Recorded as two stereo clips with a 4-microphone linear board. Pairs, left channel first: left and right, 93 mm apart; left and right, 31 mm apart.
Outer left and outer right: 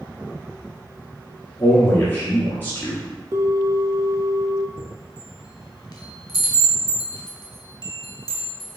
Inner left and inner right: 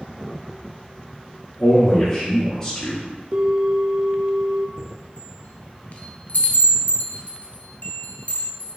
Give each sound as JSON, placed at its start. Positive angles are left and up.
{"t": 1.6, "sound": "a man speaking", "side_deg": 20, "distance_m": 1.7}
{"t": 3.3, "sound": "a bell", "side_deg": -35, "distance_m": 0.5}
{"t": 4.8, "sound": "a chime", "side_deg": 50, "distance_m": 0.7}